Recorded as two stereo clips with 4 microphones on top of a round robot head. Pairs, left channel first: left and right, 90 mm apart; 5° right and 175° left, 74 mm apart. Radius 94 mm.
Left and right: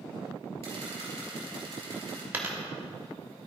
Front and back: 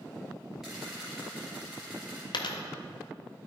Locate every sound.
0.6 s a camera shutter: 100° right, 3 m
2.3 s a dropped coin: 20° right, 0.8 m